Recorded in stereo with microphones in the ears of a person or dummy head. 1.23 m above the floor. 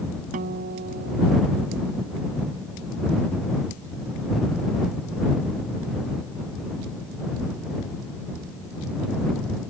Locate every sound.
0.3 s a guitar: 55° right (ahead or behind)